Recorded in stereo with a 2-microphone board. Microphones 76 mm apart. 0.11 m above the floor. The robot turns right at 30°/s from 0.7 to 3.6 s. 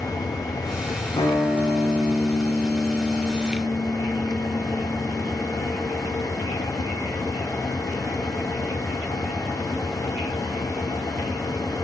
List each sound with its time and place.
1.2 s a guitar: 95° left, 3.5 m; by 5.4 s 170° left, 3.5 m